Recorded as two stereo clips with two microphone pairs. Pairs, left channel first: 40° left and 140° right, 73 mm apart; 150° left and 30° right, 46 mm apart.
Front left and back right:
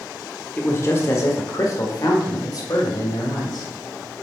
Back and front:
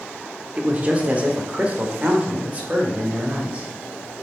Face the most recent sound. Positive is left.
turn(degrees=25)